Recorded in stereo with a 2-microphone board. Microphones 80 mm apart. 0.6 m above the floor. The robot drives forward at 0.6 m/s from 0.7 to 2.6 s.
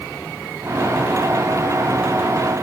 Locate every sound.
Only background noise.